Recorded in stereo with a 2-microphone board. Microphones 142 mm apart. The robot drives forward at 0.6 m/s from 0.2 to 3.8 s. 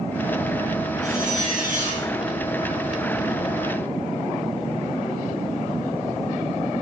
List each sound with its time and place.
1.0 s a zipper: 55° right (ahead or behind), 4 m; by 2.1 s 65° right (ahead or behind), 3.5 m